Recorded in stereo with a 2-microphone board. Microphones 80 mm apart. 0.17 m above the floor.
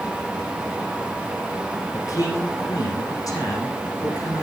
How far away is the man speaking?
About 8 m.